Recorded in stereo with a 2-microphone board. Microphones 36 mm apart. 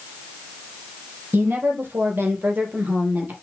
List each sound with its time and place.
1.3 s a woman speaking: 70° right (ahead or behind), 4.5 m; by 3.3 s 60° right (ahead or behind), 3.5 m